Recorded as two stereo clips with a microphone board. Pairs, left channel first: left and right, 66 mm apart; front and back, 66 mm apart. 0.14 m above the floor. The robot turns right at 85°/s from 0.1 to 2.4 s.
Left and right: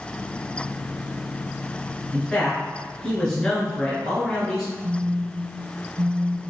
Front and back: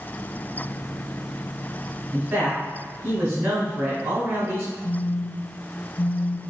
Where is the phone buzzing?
55° right, 0.6 m.